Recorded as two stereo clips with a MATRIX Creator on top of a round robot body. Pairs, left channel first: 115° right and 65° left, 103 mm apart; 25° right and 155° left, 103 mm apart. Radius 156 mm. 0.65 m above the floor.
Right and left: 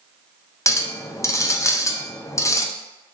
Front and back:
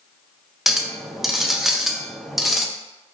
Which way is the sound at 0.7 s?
120° right.